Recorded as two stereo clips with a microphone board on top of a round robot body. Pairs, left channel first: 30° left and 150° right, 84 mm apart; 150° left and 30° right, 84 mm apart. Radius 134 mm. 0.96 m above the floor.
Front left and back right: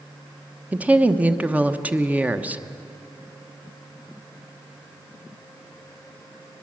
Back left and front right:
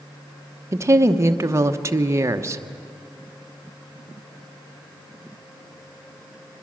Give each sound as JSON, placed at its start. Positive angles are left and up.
{"t": 0.7, "sound": "a woman speaking", "azimuth_deg": -80, "distance_m": 1.1}